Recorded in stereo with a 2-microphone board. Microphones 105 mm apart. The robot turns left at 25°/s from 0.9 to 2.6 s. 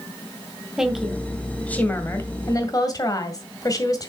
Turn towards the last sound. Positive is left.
turn(degrees=145)